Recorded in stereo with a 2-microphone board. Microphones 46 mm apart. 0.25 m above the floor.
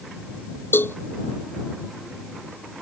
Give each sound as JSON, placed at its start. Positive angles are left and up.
{"t": 0.7, "sound": "a cowbell", "side_deg": 55}